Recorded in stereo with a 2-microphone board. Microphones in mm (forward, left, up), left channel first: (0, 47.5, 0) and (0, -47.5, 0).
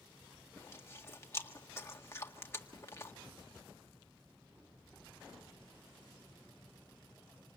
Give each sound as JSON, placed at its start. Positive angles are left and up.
{"t": 0.6, "sound": "chewing", "side_deg": 30, "distance_m": 1.7}